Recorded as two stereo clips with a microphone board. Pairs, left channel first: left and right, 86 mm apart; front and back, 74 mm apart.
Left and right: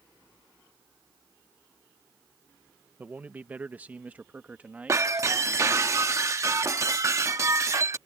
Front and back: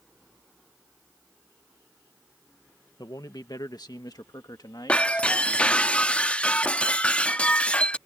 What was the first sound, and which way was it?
A man speaking, 20° right.